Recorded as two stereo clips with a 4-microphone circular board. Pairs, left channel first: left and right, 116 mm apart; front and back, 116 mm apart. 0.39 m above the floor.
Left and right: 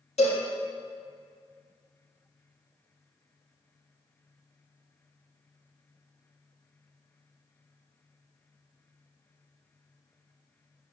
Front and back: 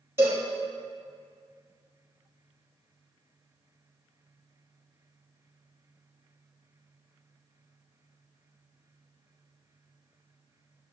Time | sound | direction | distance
0.2 | a cowbell | 115° left | 3.5 m